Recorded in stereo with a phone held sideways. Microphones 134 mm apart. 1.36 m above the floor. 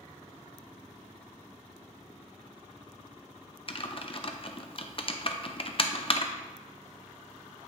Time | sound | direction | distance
3.7 | typing on a keyboard | 45° left (ahead or behind) | 0.7 m